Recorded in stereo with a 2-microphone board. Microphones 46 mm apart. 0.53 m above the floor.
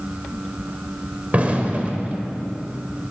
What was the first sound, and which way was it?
An explosion, 30° right (ahead or behind).